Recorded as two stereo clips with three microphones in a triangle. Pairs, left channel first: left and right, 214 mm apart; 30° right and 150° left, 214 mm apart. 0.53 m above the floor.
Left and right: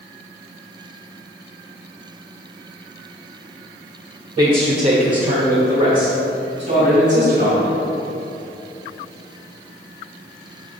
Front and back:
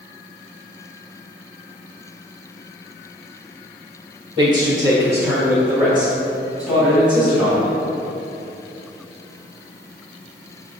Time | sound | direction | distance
4.4 | a man speaking | 150° right | 1.0 m